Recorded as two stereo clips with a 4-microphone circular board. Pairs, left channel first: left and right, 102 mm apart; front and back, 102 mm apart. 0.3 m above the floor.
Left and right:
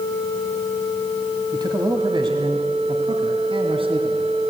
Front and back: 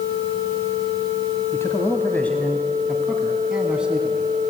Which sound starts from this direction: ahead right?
A man speaking, at 1.5 s.